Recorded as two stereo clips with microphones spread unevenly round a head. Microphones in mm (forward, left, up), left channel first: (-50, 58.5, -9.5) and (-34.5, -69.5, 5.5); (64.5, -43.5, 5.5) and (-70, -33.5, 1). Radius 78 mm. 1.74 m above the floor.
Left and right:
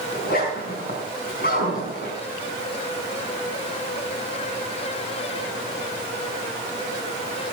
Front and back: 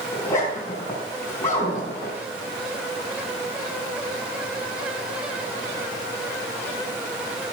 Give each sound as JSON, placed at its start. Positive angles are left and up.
{"t": 0.1, "sound": "a zipper", "azimuth_deg": 70, "distance_m": 4.5}